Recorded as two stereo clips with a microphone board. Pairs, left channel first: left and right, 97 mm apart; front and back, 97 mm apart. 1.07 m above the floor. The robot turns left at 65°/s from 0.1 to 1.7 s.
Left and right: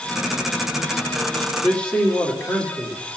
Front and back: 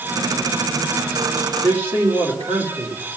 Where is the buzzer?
No buzzer in this recording.